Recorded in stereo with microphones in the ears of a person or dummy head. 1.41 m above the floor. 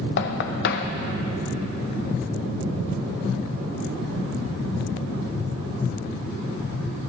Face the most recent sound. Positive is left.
turn(degrees=65)  # may be behind; listen again after turning